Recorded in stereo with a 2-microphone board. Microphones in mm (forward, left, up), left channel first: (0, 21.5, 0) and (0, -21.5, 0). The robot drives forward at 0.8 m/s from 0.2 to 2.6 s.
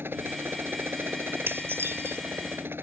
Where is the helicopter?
60° right (ahead or behind).